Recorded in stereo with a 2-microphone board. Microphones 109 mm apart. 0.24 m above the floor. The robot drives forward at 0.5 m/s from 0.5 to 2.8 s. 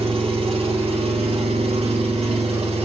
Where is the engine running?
65° right (ahead or behind), 1.9 m; by 2.9 s 80° right, 1.8 m.